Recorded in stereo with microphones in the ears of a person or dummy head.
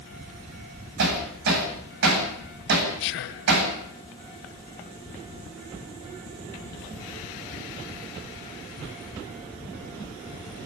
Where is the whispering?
65° left (ahead or behind), 1.2 m.